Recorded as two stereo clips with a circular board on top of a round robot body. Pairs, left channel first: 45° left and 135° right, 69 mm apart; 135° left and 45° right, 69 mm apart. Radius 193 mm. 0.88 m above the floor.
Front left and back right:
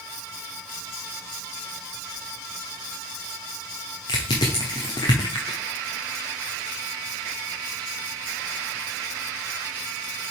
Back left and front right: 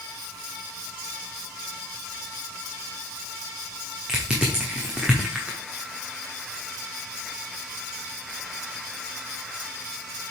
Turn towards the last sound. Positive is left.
turn(degrees=35)